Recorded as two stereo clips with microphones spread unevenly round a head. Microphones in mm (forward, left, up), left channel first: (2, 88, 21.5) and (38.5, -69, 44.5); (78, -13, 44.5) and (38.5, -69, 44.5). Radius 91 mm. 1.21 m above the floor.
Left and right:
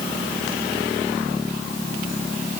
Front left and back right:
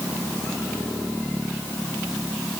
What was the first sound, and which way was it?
Only background noise.